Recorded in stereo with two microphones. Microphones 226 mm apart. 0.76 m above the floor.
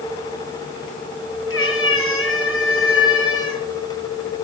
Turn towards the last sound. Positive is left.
turn(degrees=70)  # may be behind; listen again after turning